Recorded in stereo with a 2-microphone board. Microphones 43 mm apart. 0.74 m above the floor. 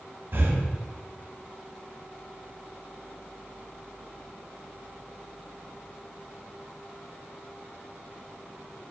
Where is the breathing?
55° right (ahead or behind), 1.2 m.